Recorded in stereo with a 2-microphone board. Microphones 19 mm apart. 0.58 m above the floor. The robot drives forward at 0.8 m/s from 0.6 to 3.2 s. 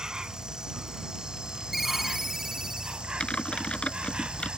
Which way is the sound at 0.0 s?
40° right (ahead or behind).